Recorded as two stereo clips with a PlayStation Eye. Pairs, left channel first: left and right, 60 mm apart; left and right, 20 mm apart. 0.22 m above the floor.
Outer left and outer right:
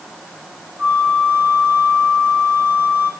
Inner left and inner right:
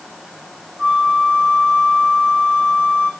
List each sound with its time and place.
0.8 s a flute: 40° right (ahead or behind), 7.5 m